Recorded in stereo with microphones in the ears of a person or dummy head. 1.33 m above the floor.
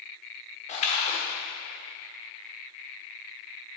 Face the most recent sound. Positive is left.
turn(degrees=40)  # may be behind; listen again after turning